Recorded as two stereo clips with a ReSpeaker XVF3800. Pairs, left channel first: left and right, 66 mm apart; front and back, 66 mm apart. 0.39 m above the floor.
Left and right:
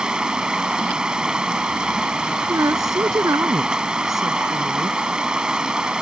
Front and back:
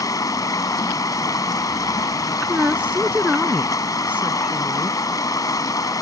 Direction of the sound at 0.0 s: 15° right.